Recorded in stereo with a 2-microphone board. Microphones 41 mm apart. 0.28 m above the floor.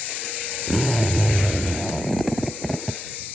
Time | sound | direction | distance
0.7 | a zipper | centre (ahead or behind) | ?